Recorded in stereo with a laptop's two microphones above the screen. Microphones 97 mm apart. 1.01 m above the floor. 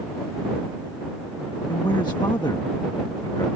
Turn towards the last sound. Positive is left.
turn(degrees=50)  # may be behind; listen again after turning